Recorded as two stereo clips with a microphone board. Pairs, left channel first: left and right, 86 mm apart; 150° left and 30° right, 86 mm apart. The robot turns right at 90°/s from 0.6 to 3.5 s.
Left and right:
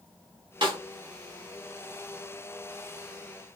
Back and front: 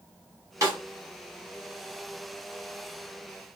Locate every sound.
0.6 s a snare drum: 80° right, 1.6 m; by 0.8 s 65° right, 1.6 m